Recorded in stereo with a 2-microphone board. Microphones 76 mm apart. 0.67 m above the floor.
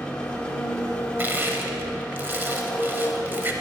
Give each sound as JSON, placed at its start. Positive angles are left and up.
{"t": 0.0, "sound": "an engine running", "side_deg": 10, "distance_m": 1.0}
{"t": 1.2, "sound": "crushing", "side_deg": -25, "distance_m": 0.8}